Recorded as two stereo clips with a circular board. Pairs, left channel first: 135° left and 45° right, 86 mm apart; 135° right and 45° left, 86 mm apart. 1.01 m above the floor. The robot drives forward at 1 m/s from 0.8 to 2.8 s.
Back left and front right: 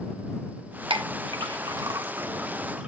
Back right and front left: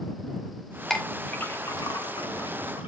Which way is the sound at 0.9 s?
50° right.